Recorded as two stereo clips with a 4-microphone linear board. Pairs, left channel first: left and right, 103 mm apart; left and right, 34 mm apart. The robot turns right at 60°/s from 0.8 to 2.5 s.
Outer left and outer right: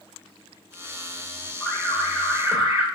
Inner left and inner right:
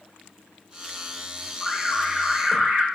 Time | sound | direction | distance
1.6 | an alarm | 175° left | 0.9 m